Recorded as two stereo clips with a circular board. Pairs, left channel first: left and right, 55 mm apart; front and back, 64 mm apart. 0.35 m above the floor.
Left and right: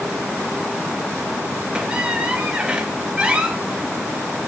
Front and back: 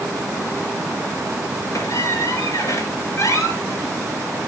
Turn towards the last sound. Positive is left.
turn(degrees=-25)